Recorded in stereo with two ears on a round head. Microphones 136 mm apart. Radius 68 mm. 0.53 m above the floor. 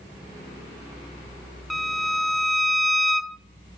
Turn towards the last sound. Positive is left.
turn(degrees=0)  # may be behind; listen again after turning